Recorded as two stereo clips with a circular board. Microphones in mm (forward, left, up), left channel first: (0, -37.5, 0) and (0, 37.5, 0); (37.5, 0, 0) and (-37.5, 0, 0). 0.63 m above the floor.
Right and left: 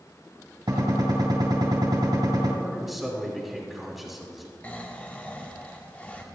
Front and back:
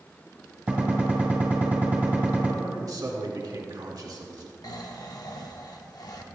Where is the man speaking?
Straight behind, 1.5 m.